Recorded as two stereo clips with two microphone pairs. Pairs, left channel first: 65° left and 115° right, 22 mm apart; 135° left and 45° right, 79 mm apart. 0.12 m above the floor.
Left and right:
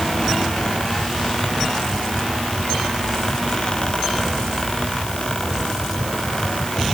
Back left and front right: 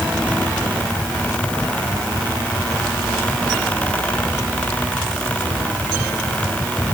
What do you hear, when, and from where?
Only background noise.